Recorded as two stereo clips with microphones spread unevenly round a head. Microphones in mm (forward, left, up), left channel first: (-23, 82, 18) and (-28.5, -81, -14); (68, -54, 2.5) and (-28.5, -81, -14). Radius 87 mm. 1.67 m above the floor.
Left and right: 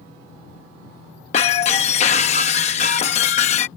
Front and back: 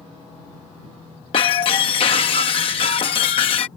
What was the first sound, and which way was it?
Breaking glass, 45° left.